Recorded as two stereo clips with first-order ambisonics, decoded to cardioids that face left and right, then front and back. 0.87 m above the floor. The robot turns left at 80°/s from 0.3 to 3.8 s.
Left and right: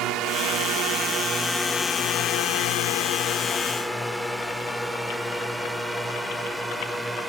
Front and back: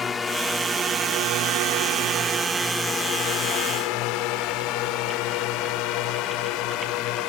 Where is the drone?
65° right; by 7.3 s 10° right.